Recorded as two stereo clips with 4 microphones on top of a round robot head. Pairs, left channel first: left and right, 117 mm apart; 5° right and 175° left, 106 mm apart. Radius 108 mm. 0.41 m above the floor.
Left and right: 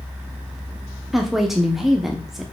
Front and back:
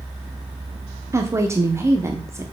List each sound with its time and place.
1.1 s a woman speaking: 175° right, 1.1 m